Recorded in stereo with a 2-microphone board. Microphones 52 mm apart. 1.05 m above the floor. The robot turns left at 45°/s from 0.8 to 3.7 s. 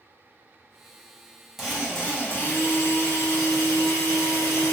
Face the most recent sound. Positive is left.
turn(degrees=90)